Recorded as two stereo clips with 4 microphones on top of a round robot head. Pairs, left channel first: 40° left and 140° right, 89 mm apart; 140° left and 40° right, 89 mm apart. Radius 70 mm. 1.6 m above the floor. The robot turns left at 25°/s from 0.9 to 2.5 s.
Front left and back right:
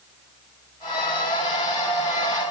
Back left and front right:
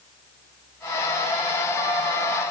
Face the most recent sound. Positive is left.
No sound to turn to.